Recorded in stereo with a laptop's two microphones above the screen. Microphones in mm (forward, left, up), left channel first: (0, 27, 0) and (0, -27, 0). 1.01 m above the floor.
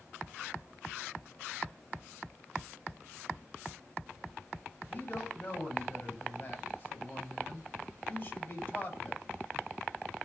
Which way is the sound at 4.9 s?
30° left (ahead or behind).